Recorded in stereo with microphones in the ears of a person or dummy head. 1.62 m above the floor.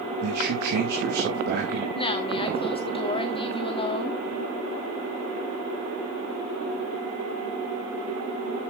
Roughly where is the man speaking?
Right.